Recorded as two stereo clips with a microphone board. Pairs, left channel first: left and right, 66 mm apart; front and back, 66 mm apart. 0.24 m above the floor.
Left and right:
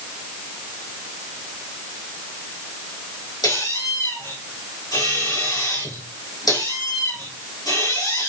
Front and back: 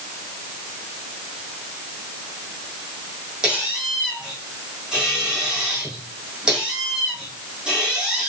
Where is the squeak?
100° left, 5 m.